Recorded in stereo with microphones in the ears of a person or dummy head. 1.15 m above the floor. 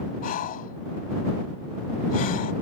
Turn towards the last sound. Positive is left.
turn(degrees=45)  # may be behind; listen again after turning